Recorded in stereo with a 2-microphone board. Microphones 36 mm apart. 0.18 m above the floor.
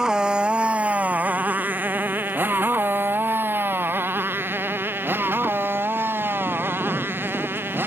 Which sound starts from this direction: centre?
A motorcycle, at 0.0 s.